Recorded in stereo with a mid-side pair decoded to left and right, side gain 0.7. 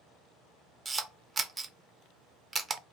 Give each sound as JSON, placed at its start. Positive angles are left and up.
{"t": 0.8, "sound": "a camera shutter", "azimuth_deg": -20, "distance_m": 0.6}